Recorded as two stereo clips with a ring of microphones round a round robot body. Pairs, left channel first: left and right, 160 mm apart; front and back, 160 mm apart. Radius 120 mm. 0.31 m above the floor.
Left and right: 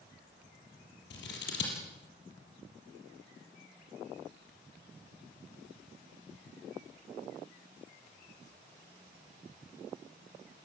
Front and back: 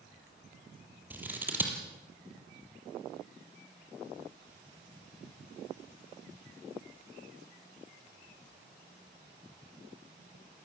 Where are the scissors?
100° left, 6 m.